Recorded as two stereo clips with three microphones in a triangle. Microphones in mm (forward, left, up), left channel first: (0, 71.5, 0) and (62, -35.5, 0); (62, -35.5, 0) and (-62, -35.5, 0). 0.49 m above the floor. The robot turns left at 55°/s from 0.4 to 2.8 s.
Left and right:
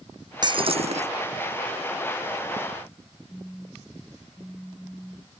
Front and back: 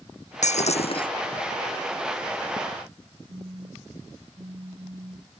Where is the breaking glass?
10° right; by 1.1 s 45° right.